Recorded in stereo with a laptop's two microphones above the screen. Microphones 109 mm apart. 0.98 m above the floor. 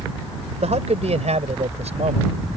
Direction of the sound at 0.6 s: 80° right.